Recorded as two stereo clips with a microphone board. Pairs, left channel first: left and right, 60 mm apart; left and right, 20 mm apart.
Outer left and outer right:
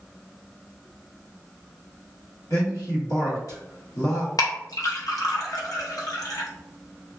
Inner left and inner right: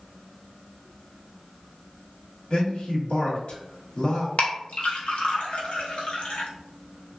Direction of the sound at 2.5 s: 65° left (ahead or behind).